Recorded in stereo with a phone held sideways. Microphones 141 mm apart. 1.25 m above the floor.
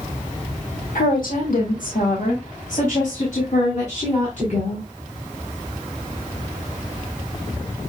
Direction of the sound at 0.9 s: 80° left.